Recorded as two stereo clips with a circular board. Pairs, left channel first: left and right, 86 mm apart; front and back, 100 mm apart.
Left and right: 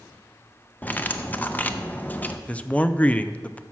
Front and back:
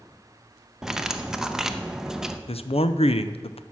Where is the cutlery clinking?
105° left, 0.6 m.